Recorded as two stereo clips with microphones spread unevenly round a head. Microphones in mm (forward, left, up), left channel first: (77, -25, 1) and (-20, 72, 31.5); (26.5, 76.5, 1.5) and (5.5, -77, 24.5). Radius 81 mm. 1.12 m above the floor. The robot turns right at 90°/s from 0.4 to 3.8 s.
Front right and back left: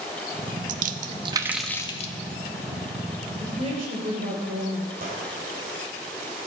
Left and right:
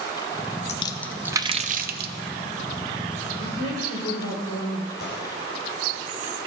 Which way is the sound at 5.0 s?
110° left.